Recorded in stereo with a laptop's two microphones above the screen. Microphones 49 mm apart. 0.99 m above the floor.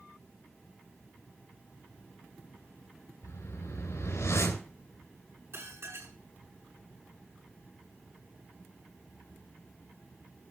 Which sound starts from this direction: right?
Dishes clattering, at 5.5 s.